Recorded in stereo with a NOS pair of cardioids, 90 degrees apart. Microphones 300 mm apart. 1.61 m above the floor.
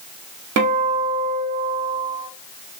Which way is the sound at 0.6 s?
60° right.